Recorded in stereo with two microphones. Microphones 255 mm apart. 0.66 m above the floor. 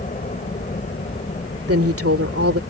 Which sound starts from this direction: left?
A helicopter, at 0.0 s.